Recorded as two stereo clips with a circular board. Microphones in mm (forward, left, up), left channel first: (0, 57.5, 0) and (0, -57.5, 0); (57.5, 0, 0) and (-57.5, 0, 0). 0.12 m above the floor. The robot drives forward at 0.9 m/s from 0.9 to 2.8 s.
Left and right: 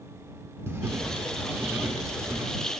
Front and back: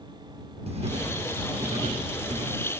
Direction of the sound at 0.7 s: 155° right.